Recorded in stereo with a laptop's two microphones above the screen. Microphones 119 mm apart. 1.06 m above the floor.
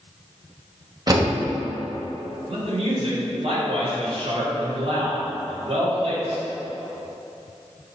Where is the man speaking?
55° right (ahead or behind), 2 m.